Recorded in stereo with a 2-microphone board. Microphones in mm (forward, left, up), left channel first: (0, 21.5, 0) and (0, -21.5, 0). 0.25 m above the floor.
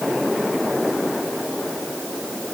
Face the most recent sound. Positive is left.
No sound to turn to.